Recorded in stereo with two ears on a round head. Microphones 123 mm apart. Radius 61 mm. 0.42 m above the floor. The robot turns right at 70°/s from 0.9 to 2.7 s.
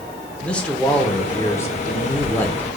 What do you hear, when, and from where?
0.4 s a man speaking: 10° left (ahead or behind), 0.7 m